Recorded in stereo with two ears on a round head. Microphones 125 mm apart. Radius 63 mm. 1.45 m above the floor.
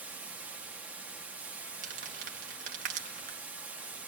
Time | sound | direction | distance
0.0 | running water | 10° right (ahead or behind) | 1.1 m
1.8 | crumpling | 65° right (ahead or behind) | 2.0 m